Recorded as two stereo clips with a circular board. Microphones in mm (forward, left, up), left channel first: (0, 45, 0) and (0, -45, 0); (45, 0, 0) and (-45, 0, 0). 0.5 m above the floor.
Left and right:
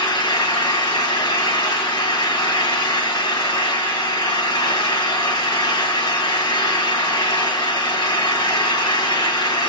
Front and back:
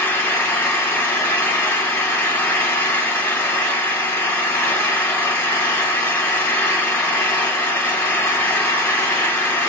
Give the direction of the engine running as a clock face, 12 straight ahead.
10 o'clock.